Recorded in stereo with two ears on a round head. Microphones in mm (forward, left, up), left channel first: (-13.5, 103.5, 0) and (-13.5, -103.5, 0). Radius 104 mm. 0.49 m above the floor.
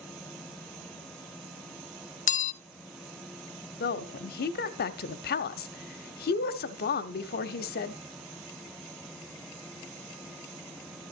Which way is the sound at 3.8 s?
45° left (ahead or behind).